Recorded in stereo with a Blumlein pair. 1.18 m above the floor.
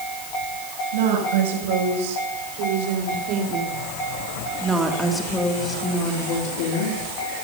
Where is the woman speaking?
60° right, 7.5 m; by 7.0 s 55° left, 3.5 m.